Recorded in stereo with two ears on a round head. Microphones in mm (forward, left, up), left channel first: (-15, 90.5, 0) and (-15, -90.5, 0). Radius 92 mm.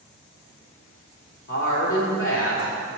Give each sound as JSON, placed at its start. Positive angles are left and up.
{"t": 1.5, "sound": "a woman speaking", "side_deg": 70, "distance_m": 2.5}